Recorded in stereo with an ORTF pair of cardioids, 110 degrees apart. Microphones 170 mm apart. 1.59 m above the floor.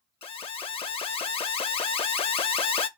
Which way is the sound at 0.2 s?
35° left.